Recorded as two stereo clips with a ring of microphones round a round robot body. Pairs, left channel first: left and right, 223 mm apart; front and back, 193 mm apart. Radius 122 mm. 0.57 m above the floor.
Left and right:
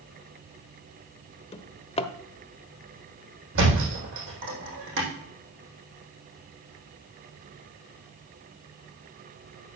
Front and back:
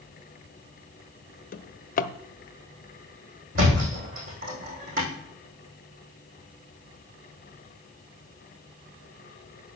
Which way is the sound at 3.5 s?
125° right.